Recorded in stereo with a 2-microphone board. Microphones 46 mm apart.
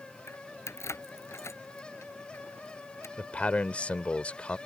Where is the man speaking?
30° left (ahead or behind).